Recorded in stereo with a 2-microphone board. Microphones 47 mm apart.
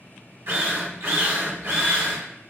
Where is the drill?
65° right (ahead or behind), 1.1 m.